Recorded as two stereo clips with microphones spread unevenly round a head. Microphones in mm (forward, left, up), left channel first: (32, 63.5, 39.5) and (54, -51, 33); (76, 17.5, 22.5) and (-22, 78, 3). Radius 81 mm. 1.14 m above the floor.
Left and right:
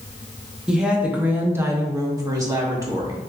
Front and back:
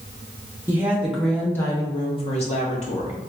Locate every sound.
0.7 s a woman speaking: 155° right, 0.8 m; by 3.2 s 25° right, 1.0 m